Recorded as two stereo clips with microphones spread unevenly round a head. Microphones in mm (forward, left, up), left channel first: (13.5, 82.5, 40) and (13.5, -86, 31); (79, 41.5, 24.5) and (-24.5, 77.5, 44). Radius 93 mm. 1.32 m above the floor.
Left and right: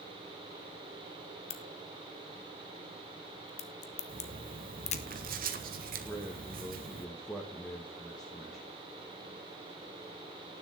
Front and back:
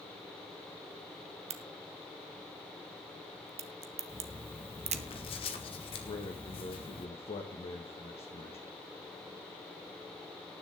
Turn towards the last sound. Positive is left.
turn(degrees=0)